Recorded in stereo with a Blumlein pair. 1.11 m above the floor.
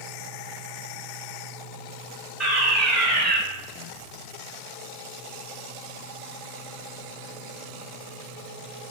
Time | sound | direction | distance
2.4 | a fire alarm | 10° right | 3.5 m